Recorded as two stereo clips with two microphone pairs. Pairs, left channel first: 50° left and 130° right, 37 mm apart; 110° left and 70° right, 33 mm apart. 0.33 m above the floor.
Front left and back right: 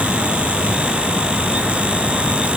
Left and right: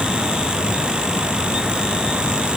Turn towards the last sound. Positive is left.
No sound to turn to.